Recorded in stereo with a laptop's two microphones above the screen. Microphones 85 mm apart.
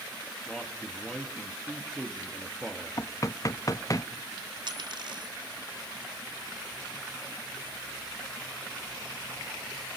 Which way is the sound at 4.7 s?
65° right (ahead or behind).